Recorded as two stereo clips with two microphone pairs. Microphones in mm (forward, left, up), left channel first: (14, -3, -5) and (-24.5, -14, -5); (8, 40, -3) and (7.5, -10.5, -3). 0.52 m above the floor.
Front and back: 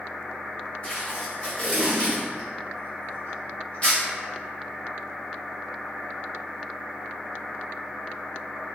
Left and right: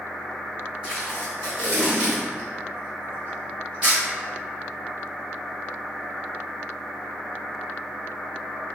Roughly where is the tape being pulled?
Ahead right.